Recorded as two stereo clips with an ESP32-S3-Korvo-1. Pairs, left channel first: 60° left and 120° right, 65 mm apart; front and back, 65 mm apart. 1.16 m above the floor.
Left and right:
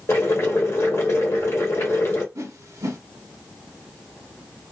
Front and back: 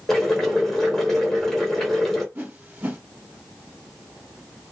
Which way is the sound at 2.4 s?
130° right.